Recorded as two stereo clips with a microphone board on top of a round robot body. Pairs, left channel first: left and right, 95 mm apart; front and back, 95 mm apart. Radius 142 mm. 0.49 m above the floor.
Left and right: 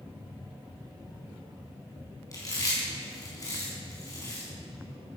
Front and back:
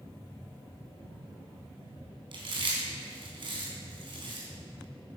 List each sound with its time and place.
2.3 s chewing: 145° left, 4.5 m